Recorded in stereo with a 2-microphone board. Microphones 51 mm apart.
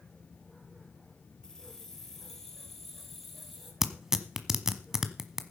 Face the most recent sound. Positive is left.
turn(degrees=-10)  # may be behind; listen again after turning